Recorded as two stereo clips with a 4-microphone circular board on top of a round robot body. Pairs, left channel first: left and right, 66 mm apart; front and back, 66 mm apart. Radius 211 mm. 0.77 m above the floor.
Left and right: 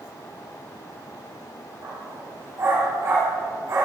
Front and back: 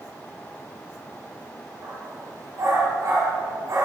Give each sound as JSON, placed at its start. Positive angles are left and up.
{"t": 1.8, "sound": "a dog barking", "azimuth_deg": -135, "distance_m": 7.5}